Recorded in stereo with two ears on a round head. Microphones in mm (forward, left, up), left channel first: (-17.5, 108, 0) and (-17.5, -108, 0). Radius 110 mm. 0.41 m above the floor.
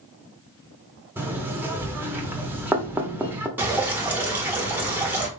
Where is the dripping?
10° right (ahead or behind), 1.4 m.